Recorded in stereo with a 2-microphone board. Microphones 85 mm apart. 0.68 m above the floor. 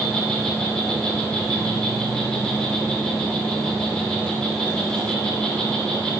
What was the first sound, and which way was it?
An insect, 10° left (ahead or behind).